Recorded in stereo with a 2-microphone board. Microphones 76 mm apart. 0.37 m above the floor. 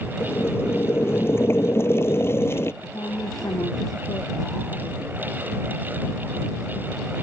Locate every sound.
0.2 s boiling: 35° left (ahead or behind)
2.8 s a woman speaking: 60° left (ahead or behind)